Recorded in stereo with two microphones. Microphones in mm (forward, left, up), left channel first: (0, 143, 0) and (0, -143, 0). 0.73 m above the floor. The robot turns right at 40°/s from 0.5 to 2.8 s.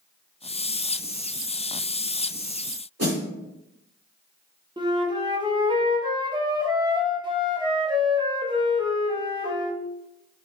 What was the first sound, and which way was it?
A snare drum, 55° right (ahead or behind).